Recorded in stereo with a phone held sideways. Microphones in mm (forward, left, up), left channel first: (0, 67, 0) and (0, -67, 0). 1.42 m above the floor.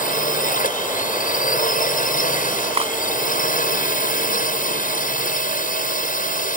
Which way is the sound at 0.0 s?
80° left.